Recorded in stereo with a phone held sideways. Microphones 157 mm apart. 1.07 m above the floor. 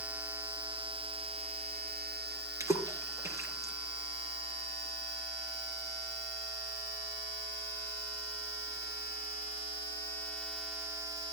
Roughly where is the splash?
Centre.